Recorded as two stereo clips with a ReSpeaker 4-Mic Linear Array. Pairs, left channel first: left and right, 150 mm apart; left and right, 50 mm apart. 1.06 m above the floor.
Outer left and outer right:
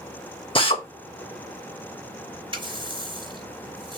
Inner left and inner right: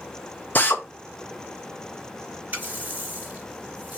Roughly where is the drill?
Left.